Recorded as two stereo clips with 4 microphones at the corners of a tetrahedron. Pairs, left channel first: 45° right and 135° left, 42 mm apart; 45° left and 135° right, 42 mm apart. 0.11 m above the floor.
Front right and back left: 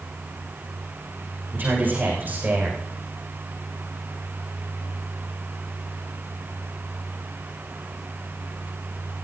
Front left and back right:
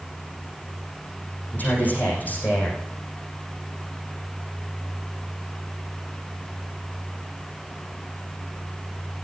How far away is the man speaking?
About 7 m.